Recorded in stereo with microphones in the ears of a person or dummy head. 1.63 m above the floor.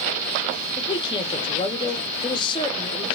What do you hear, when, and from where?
0.8 s a man speaking: 25° left (ahead or behind), 0.6 m